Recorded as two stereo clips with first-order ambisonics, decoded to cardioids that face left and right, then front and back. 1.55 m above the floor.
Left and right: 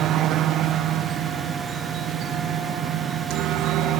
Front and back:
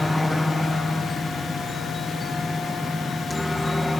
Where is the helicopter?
80° right; by 4.0 s 85° right.